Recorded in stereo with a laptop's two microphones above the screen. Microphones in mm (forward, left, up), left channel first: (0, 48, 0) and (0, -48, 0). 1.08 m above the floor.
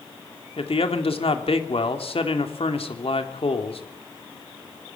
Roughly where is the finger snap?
No finger snap in this recording.